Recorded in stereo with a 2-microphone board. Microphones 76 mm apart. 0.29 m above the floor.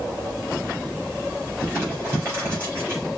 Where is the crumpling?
30° right (ahead or behind), 3 m.